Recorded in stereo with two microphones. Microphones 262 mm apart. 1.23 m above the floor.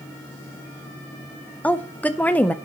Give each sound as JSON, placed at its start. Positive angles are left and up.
{"t": 1.6, "sound": "a woman speaking", "side_deg": 5, "distance_m": 0.8}